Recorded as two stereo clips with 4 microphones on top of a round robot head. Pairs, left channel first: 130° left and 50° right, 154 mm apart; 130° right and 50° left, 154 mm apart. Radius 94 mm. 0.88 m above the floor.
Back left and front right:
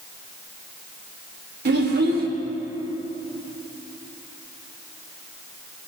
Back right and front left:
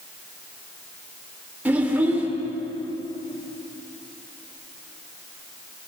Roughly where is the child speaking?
Ahead right.